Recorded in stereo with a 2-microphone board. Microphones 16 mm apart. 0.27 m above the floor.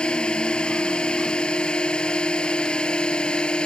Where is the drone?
75° left (ahead or behind).